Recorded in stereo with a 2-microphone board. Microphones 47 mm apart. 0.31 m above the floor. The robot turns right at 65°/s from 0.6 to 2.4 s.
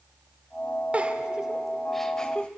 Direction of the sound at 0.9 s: 30° right (ahead or behind).